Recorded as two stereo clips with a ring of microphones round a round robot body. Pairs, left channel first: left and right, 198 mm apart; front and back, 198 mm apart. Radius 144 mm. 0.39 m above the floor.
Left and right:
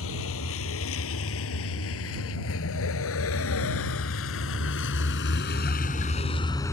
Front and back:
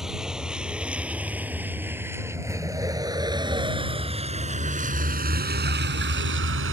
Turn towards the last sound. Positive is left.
turn(degrees=170)